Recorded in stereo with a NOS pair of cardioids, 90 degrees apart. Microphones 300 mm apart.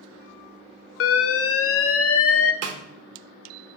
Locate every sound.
1.0 s an alarm: 50° left, 0.7 m
2.6 s a snare drum: 55° right, 1.1 m